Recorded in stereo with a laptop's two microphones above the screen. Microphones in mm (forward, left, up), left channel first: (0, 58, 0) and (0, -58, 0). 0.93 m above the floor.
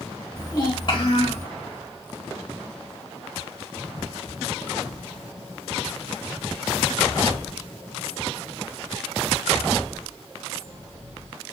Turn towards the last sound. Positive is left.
turn(degrees=65)  # may be behind; listen again after turning